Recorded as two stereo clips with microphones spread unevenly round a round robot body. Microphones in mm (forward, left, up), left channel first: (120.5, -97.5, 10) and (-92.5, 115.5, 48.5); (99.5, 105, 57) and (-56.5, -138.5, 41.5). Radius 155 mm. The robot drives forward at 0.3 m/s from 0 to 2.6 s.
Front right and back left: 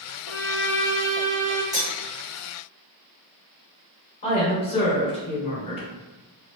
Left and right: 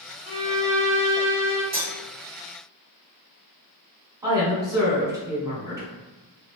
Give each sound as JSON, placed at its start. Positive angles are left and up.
{"t": 0.2, "sound": "a violin", "azimuth_deg": -85, "distance_m": 1.0}
{"t": 1.7, "sound": "cutlery clinking", "azimuth_deg": -145, "distance_m": 1.5}
{"t": 4.2, "sound": "a woman speaking", "azimuth_deg": -65, "distance_m": 1.3}